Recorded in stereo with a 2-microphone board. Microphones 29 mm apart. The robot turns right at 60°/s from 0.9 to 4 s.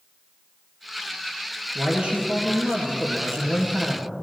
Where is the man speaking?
160° right, 3 m; by 4.1 s 25° right, 3 m.